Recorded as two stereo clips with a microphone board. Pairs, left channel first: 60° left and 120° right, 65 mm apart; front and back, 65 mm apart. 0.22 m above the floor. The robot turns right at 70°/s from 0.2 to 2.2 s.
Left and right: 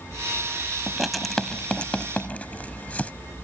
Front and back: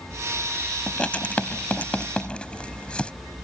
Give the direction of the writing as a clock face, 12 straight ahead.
2 o'clock.